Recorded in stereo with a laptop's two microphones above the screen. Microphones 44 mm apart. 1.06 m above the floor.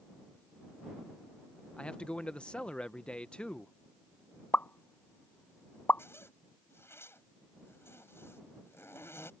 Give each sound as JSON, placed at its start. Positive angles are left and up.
{"t": 1.8, "sound": "a man speaking", "side_deg": 25}
{"t": 4.5, "sound": "a pop", "side_deg": 45}
{"t": 6.0, "sound": "a zipper", "side_deg": 75}